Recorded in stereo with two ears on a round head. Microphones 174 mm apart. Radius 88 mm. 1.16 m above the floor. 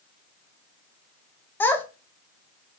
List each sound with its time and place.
1.6 s a child speaking: 10° left (ahead or behind), 0.5 m